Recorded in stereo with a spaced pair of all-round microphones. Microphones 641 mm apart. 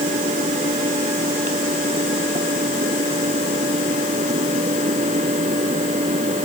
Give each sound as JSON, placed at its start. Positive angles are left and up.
{"t": 0.0, "sound": "a fan", "side_deg": -10}